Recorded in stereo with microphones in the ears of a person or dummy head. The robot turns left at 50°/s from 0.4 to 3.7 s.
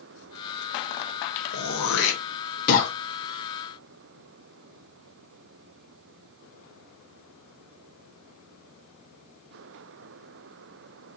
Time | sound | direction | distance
1.5 | throat clearing | 65° left (ahead or behind) | 1.2 m